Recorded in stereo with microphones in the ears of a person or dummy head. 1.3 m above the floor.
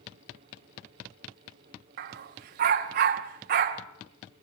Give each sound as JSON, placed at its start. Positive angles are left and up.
{"t": 2.0, "sound": "a dog barking", "side_deg": -40, "distance_m": 0.8}